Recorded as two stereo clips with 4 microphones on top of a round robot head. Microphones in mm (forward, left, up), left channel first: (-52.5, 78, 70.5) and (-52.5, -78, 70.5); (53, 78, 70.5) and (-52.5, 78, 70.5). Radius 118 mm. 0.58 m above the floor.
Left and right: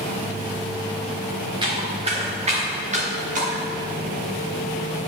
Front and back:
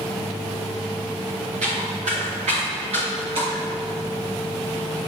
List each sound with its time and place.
1.6 s footsteps: 150° right, 3 m; by 3.6 s 125° right, 4 m